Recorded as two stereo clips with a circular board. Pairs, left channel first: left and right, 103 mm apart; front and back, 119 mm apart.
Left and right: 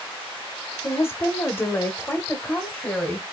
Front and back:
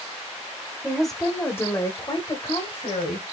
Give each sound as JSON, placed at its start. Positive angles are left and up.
{"t": 0.8, "sound": "a woman speaking", "azimuth_deg": 105, "distance_m": 1.1}